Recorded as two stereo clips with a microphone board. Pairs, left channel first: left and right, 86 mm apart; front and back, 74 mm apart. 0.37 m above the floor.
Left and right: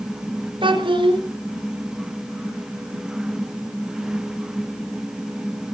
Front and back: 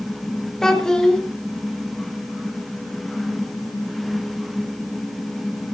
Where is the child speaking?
80° right, 3.5 m.